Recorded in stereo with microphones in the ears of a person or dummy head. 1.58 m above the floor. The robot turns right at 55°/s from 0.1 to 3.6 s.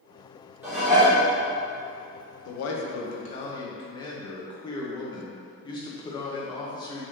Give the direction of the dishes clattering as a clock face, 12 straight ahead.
12 o'clock.